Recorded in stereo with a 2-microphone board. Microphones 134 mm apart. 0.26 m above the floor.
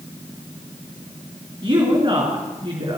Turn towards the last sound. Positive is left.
turn(degrees=-35)  # may be behind; listen again after turning